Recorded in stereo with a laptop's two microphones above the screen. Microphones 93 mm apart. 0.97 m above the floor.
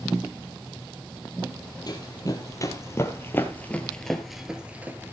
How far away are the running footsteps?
About 1.9 m.